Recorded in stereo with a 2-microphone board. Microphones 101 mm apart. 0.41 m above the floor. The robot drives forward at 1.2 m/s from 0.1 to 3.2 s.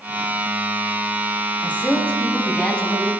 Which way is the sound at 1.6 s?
15° left (ahead or behind).